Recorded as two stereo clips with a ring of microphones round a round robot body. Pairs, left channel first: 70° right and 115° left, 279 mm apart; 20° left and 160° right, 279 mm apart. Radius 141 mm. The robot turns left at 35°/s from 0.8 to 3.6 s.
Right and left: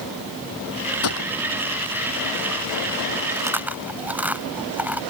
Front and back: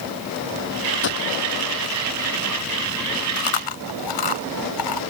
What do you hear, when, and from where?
1.0 s a gunshot: 25° right; by 1.3 s 35° right
3.4 s chewing: 35° left; by 5.0 s 30° left